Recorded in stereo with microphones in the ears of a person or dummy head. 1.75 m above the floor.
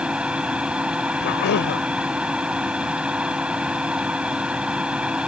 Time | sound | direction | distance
0.0 | a machine running | centre (ahead or behind) | ?
1.2 | a cough | 60° left (ahead or behind) | ?